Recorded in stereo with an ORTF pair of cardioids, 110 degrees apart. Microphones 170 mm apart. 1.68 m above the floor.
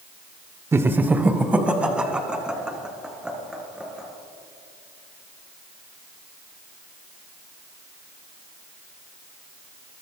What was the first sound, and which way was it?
Laughter, 15° right.